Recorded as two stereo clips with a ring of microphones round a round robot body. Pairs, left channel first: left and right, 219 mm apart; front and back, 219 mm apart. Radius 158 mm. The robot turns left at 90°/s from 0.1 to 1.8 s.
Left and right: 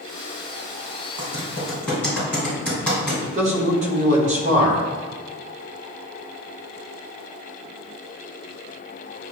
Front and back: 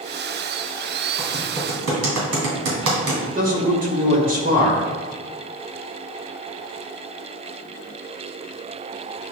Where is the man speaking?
140° right, 1.2 m.